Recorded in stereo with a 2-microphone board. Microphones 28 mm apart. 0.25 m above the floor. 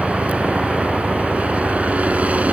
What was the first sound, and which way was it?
A helicopter, 55° right (ahead or behind).